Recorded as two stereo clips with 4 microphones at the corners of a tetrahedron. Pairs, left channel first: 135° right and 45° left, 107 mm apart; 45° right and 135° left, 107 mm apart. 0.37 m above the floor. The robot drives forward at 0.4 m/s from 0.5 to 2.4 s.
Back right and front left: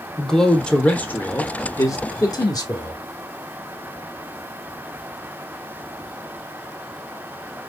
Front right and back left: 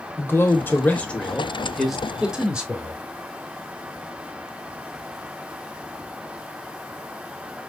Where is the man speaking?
60° right, 0.9 m; by 3.0 s 150° right, 1.1 m.